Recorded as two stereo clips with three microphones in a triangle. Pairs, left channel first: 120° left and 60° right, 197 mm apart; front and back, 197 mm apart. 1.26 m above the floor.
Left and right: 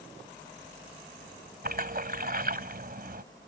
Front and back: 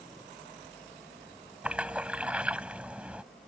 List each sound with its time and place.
1.6 s a splash: 95° right